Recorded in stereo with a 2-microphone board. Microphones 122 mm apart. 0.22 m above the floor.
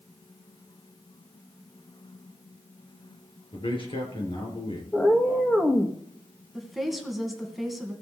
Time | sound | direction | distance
3.5 | a man speaking | 45° left (ahead or behind) | 4 m
4.9 | a cat meowing | 5° left (ahead or behind) | 1.9 m
6.5 | a woman speaking | centre (ahead or behind) | 2 m